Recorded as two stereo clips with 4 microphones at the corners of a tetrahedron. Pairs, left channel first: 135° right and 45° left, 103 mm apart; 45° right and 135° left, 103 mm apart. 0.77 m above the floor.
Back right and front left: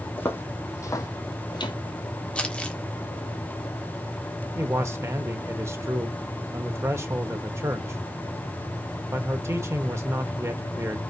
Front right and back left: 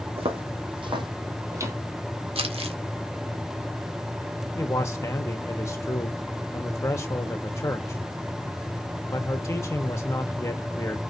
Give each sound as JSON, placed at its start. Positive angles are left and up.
{"t": 0.2, "sound": "footsteps", "azimuth_deg": 155, "distance_m": 2.5}
{"t": 2.4, "sound": "crumpling", "azimuth_deg": 145, "distance_m": 1.7}
{"t": 4.5, "sound": "a man speaking", "azimuth_deg": 0, "distance_m": 1.2}